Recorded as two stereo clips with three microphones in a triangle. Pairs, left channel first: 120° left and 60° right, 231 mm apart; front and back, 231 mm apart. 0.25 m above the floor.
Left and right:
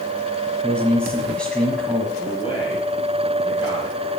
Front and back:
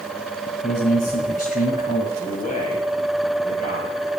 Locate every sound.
0.6 s a man speaking: 35° left, 1.7 m
2.2 s a man speaking: 55° left, 6 m